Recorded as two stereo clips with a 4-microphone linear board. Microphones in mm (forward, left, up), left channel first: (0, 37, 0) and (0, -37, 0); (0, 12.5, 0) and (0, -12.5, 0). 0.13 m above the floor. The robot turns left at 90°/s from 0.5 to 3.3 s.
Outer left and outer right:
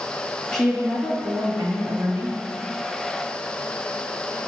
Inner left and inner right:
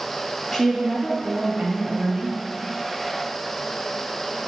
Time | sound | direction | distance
0.5 | a woman speaking | 10° left | 2.5 m